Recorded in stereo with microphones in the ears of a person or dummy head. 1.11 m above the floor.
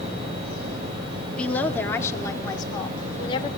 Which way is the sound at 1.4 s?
5° left (ahead or behind).